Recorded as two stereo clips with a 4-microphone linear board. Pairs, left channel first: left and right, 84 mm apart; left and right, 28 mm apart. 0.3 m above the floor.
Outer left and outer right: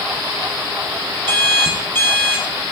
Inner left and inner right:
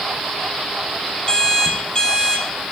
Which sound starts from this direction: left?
An alarm clock, at 1.3 s.